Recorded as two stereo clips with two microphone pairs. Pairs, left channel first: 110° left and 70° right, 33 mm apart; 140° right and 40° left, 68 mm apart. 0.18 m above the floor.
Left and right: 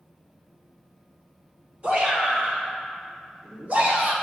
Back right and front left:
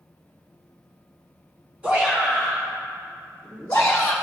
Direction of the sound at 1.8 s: 25° right.